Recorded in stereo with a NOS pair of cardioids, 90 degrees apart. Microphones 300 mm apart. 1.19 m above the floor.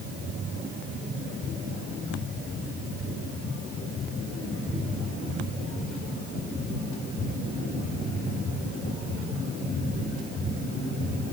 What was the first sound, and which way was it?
Only background noise.